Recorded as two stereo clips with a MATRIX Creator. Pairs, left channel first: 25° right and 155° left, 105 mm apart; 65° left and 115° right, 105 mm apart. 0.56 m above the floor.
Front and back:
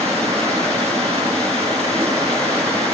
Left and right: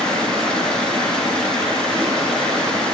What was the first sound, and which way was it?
Running water, 150° left.